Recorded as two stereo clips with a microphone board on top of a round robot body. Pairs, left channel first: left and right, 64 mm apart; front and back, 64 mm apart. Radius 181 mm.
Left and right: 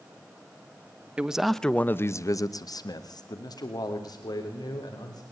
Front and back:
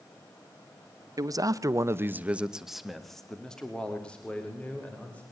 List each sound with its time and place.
1.2 s a man speaking: 160° right, 1.6 m; by 5.2 s 70° left, 5 m